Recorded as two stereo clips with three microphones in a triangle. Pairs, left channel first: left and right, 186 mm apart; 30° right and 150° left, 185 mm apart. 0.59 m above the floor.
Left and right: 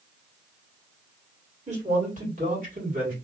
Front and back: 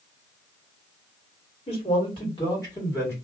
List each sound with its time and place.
1.7 s a man speaking: 70° right, 1.6 m; by 3.1 s 100° right, 1.8 m